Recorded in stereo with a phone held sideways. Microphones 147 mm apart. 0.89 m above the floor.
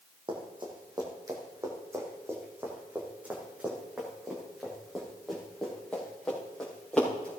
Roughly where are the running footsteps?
Right.